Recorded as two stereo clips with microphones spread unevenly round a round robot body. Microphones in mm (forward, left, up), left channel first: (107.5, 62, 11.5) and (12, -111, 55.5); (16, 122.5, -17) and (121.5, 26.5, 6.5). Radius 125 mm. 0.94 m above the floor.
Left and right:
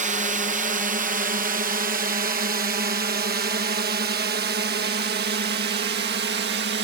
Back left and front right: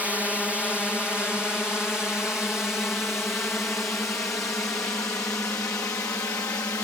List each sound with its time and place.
0.0 s a drone: 135° right; by 6.9 s 150° right